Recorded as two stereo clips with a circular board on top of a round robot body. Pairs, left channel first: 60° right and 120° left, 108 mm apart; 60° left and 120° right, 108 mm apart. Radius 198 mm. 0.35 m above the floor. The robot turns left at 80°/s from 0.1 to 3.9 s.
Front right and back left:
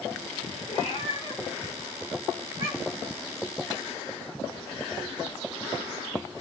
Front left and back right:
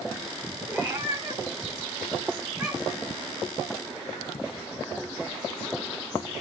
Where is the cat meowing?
50° right, 3.5 m; by 3.1 s 115° left, 3.5 m.